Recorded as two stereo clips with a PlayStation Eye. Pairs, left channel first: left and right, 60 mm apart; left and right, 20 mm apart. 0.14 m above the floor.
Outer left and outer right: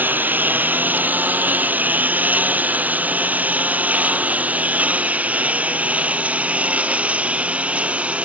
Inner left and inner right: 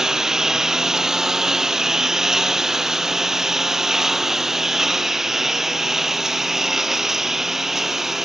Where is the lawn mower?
30° right (ahead or behind); by 8.2 s 20° right (ahead or behind).